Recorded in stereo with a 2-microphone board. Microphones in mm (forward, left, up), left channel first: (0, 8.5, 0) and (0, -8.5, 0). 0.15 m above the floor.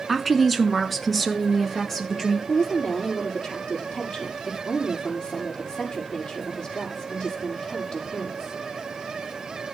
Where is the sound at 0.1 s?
5° right (ahead or behind), 1.4 m; by 2.4 s 15° left (ahead or behind), 3 m.